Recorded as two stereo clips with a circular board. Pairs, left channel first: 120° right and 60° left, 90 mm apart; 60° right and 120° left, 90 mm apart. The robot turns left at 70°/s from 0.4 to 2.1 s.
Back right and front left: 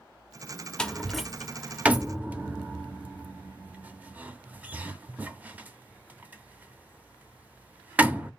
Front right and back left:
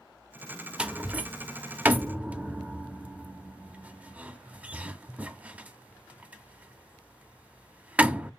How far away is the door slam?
About 0.6 m.